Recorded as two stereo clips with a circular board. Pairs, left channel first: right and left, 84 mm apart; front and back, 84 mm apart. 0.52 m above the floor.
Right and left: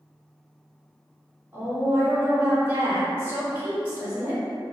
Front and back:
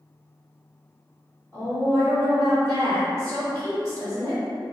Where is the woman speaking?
30° left, 1.5 m.